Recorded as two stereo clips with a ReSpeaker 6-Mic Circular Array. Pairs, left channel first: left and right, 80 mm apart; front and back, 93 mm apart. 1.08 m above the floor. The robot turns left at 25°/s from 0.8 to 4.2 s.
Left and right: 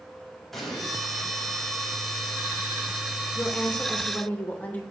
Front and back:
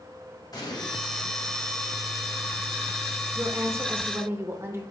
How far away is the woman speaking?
About 0.7 m.